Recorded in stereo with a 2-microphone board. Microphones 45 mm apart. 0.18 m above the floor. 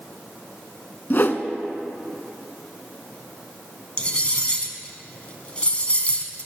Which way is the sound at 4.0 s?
25° left (ahead or behind).